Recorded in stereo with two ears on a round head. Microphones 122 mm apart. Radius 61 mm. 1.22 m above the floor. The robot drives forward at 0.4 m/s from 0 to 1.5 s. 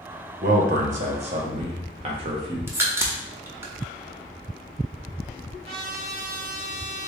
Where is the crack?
15° right (ahead or behind), 0.6 m.